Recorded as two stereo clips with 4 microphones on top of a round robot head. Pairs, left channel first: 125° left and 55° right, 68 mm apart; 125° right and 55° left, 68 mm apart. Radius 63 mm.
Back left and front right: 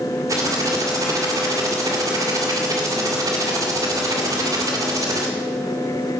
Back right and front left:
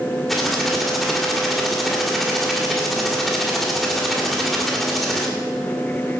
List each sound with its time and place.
0.3 s typing on a keyboard: 35° right, 2 m